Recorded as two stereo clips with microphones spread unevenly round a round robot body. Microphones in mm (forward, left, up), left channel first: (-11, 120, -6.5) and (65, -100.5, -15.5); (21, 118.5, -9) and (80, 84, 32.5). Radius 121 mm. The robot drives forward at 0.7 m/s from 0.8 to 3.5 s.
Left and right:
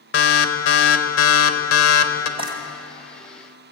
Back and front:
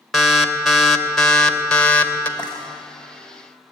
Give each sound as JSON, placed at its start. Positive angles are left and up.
{"t": 0.1, "sound": "an alarm", "azimuth_deg": 70, "distance_m": 2.5}
{"t": 2.4, "sound": "frying", "azimuth_deg": -140, "distance_m": 2.0}